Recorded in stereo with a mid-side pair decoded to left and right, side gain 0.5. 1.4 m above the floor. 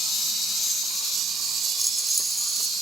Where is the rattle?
5° right.